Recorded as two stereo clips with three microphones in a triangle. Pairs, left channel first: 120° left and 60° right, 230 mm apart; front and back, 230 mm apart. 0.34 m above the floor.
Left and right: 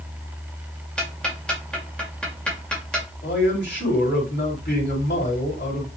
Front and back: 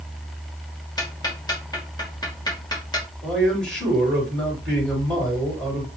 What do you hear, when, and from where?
1.0 s ticking: 40° left, 1.5 m
3.2 s a man speaking: 85° left, 3 m